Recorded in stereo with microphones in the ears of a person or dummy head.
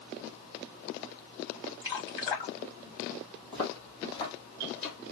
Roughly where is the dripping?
Left.